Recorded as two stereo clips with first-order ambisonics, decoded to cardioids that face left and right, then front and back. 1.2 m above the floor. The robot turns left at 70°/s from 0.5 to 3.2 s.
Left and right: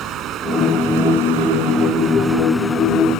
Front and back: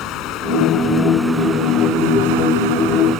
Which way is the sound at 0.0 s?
40° right.